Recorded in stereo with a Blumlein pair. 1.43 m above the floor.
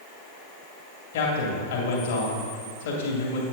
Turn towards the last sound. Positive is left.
turn(degrees=55)